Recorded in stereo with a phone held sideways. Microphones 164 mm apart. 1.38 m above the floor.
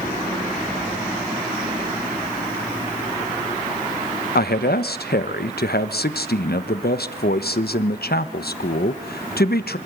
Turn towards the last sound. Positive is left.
turn(degrees=85)